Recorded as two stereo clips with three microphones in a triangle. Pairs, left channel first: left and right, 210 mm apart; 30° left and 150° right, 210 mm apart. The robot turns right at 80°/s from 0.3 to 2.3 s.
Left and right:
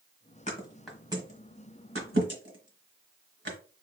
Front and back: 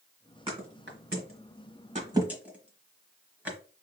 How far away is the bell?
I don't hear a bell.